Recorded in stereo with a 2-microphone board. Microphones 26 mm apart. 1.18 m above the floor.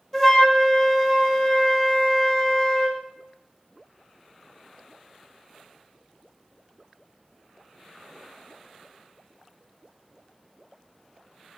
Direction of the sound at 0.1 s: 15° left (ahead or behind).